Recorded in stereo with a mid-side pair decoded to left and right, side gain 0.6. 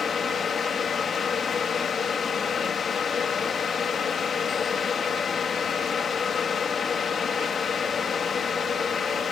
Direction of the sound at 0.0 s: 40° left.